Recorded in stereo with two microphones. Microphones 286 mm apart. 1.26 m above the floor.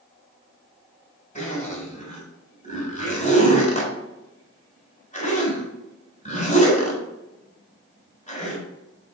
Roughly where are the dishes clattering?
No dishes clattering in this recording.